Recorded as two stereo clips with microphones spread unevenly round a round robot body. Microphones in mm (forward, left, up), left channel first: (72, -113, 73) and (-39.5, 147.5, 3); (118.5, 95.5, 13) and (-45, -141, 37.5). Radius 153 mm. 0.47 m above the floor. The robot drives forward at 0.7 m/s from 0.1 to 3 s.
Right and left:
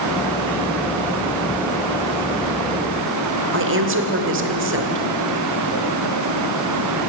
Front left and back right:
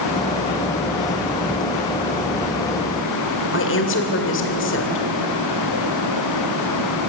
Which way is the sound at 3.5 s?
95° left.